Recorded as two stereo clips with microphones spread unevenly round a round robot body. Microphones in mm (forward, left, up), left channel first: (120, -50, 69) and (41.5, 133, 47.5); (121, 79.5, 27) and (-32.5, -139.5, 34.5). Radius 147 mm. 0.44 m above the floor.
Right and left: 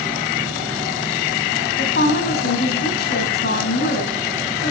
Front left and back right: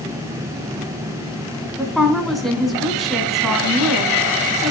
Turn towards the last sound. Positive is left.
turn(degrees=-35)